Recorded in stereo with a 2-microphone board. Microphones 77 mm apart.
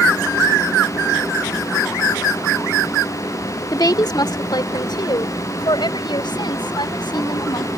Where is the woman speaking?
55° left (ahead or behind); by 7.7 s 80° left.